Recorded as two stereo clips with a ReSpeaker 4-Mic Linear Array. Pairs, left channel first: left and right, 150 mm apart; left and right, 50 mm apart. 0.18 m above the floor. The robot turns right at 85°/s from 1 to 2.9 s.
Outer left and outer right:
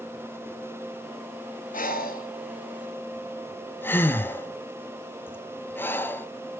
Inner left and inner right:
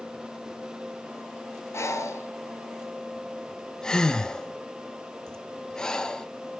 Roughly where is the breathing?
Left.